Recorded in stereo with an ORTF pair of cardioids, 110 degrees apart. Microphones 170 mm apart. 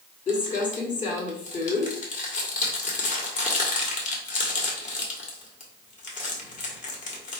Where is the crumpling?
45° left, 1.8 m.